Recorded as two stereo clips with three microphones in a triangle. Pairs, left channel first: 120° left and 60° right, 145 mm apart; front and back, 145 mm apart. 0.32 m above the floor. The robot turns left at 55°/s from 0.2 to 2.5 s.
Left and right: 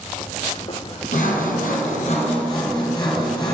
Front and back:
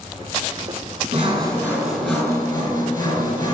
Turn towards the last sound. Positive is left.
turn(degrees=60)